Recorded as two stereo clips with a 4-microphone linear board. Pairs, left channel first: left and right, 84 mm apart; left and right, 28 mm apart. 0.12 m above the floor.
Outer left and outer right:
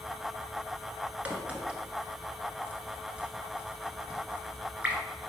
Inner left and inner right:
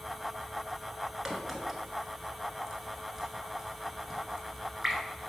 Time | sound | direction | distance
1.2 | a crack | 15° right (ahead or behind) | 1.3 m